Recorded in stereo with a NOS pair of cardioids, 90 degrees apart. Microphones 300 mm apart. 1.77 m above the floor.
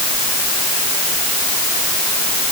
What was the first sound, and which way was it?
Only background noise.